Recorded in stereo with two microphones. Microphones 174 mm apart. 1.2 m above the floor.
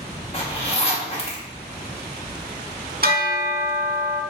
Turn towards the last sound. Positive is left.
turn(degrees=-60)  # may be behind; listen again after turning